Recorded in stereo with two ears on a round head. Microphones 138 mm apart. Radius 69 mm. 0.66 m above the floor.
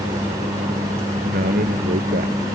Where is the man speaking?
55° right (ahead or behind); by 2.4 s 60° right (ahead or behind).